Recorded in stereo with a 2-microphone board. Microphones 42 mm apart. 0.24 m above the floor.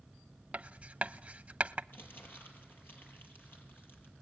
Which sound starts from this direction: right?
Writing, at 0.5 s.